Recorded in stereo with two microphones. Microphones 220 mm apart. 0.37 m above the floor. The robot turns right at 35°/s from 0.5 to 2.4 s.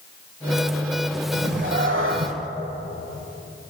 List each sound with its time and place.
1.3 s a cat meowing: 125° right, 1.2 m; by 2.3 s 90° right, 1.2 m